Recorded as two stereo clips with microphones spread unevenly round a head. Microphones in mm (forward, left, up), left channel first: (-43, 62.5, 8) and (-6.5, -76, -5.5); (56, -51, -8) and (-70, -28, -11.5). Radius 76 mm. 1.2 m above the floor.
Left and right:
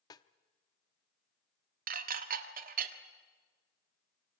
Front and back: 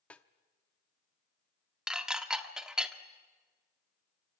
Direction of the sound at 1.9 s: 105° right.